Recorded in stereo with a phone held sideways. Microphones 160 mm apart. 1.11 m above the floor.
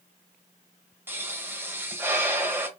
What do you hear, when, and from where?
1.1 s a pop: 15° right (ahead or behind), 0.9 m